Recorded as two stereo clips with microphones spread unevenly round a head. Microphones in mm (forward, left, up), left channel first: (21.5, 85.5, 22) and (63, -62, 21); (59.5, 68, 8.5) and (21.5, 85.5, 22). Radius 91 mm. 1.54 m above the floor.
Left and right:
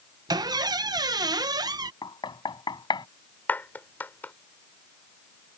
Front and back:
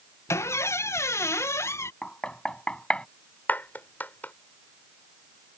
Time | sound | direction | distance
0.3 | a squeak | 10° right | ?
2.0 | knocking | 45° left | ?
3.5 | a clap | 25° left | ?